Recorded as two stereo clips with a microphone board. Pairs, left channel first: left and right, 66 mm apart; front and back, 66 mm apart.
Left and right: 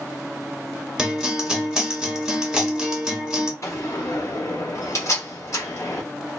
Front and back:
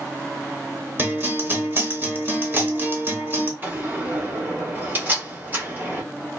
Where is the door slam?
125° left, 1.7 m.